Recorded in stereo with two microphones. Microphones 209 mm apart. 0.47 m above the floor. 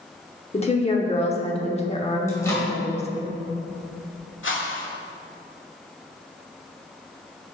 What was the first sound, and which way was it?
A woman speaking, 30° left (ahead or behind).